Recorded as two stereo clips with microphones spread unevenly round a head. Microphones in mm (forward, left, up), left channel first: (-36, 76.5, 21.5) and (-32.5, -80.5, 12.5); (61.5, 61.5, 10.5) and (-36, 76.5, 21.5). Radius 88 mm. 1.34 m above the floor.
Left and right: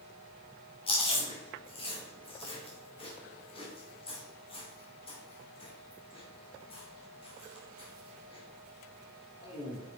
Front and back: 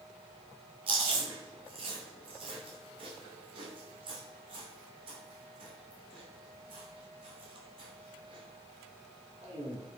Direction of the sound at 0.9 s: 145° left.